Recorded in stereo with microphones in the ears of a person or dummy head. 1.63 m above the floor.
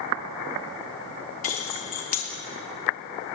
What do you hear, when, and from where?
1.4 s keys jangling: 40° left (ahead or behind), 1.0 m